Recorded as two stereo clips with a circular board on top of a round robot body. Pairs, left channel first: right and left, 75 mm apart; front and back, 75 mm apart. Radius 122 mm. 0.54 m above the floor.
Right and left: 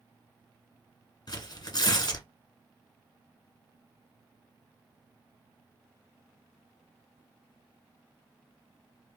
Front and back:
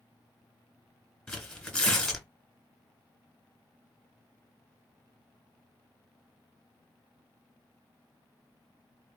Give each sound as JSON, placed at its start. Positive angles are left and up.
{"t": 1.3, "sound": "tearing paper", "azimuth_deg": -80, "distance_m": 1.8}